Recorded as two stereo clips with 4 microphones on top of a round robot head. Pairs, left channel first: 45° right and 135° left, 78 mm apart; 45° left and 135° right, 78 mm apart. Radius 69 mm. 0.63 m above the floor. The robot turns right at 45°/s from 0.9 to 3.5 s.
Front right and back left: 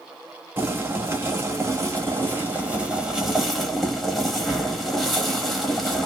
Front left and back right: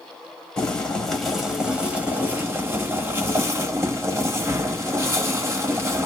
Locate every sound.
0.6 s boiling: 110° left, 1.3 m; by 6.1 s 135° right, 1.3 m